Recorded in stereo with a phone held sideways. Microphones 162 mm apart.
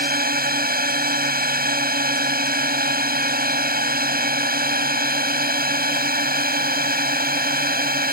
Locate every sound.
0.0 s a drone: 65° right (ahead or behind)